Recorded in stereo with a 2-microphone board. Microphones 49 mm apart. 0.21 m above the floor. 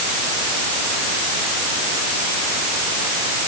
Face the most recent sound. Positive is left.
No sound to turn to.